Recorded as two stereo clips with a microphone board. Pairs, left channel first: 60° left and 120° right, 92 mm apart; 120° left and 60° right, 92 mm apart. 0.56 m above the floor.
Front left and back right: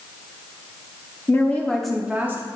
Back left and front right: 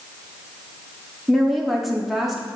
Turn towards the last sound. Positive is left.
turn(degrees=-145)